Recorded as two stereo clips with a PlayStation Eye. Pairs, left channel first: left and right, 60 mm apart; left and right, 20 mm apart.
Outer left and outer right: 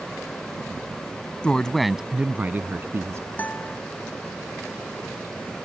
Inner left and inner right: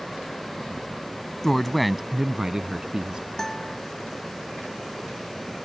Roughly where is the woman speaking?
Centre.